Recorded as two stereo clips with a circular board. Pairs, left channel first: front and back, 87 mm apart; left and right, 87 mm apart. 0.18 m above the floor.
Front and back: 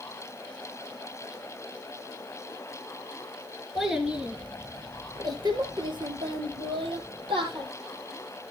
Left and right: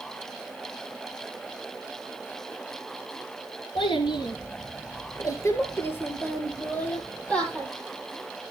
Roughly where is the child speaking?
Left.